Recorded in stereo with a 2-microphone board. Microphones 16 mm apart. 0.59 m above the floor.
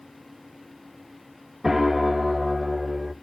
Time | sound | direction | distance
1.6 | a piano | 10° right (ahead or behind) | 0.5 m